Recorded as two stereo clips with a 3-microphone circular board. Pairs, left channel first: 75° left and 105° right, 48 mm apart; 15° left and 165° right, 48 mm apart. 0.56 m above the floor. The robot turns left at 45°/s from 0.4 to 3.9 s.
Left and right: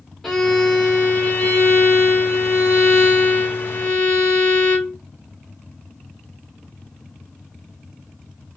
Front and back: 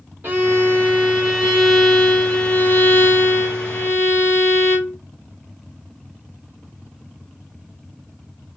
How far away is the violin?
About 1.7 m.